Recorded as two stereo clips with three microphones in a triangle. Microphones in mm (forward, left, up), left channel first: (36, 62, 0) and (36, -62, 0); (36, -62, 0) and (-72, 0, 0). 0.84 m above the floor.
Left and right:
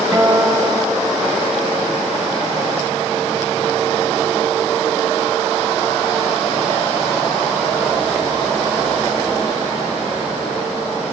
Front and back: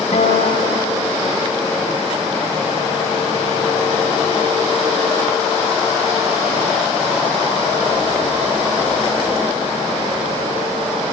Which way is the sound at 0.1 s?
5° right.